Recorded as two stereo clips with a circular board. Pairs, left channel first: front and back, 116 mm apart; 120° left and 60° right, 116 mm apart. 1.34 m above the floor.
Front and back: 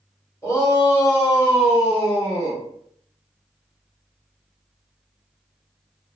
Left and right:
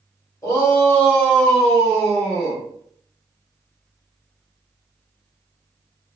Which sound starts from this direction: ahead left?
A shout, at 0.4 s.